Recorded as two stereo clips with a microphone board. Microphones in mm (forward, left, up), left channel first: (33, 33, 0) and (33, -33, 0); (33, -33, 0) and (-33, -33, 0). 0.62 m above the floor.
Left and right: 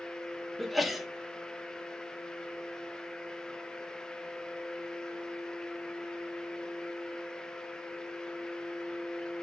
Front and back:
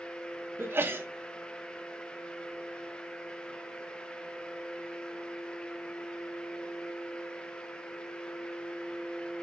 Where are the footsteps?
No footsteps in this recording.